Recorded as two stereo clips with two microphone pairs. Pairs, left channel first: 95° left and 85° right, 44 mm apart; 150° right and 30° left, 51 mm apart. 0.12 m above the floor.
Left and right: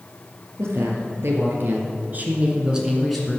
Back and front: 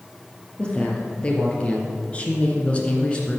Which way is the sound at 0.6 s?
80° right.